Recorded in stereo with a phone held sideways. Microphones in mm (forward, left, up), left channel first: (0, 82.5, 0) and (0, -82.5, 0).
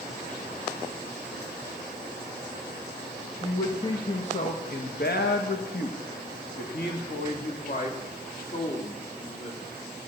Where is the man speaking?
25° left (ahead or behind), 1.4 m; by 9.7 s 45° left (ahead or behind), 3.5 m.